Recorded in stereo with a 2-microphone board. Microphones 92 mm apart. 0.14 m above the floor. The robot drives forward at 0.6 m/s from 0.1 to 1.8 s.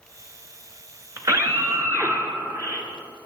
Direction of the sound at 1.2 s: 35° right (ahead or behind).